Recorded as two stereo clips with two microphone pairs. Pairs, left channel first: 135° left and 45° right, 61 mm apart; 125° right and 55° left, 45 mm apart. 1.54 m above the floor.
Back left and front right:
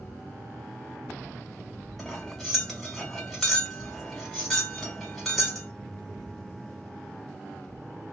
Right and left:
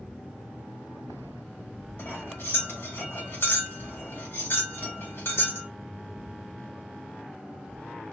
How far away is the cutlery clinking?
About 1.7 m.